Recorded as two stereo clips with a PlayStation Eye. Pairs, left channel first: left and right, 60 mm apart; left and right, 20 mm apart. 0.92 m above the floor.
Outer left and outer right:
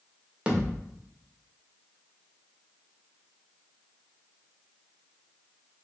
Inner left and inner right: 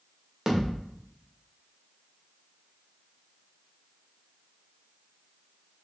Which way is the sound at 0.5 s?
20° right (ahead or behind).